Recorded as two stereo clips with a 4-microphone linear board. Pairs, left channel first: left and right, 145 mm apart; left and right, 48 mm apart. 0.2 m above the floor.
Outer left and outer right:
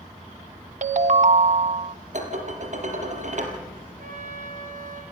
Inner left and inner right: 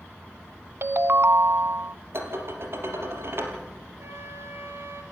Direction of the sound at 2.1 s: 55° right (ahead or behind).